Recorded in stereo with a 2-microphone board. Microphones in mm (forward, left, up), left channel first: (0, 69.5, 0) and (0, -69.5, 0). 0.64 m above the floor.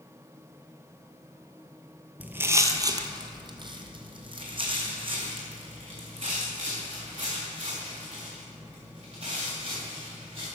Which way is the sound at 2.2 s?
10° right (ahead or behind).